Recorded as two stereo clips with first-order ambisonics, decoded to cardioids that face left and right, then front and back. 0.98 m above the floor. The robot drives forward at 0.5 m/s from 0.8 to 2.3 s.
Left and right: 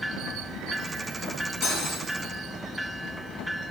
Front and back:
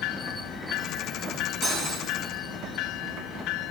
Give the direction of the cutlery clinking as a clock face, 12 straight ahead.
8 o'clock.